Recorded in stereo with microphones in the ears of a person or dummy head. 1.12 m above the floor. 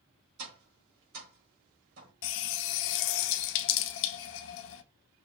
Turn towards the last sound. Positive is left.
turn(degrees=60)  # may be behind; listen again after turning